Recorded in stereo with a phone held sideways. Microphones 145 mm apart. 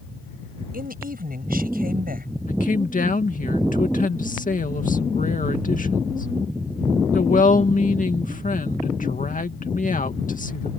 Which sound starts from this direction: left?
A woman speaking, at 2.5 s.